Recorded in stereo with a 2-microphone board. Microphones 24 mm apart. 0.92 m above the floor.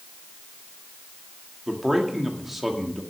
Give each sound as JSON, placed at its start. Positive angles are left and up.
{"t": 1.7, "sound": "a man speaking", "side_deg": -10, "distance_m": 1.9}